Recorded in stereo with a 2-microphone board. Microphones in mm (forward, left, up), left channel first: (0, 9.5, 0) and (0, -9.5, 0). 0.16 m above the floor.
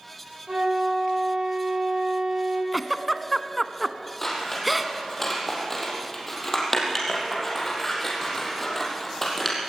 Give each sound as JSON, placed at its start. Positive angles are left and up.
{"t": 0.5, "sound": "a flute", "side_deg": -50, "distance_m": 6.0}
{"t": 2.7, "sound": "a giggle", "side_deg": 0, "distance_m": 0.7}
{"t": 4.2, "sound": "scissors", "side_deg": 10, "distance_m": 4.0}